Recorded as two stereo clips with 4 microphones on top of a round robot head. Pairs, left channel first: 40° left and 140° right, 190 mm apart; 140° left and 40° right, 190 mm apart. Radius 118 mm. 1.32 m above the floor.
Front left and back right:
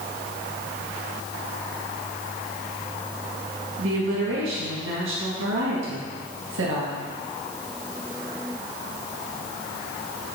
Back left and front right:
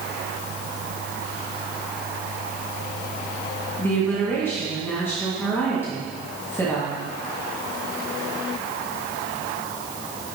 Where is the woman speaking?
145° right, 2 m.